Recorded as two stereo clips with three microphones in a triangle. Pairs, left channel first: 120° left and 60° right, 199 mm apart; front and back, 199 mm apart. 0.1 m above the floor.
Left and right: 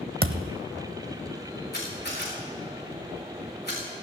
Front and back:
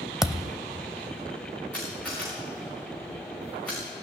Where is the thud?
90° right, 0.6 m.